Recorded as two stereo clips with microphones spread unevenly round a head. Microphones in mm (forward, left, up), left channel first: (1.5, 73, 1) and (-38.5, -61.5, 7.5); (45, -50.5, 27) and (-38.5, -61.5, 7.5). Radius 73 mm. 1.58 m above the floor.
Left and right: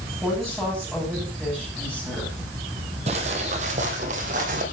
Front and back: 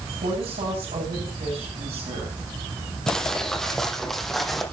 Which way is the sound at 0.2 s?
170° left.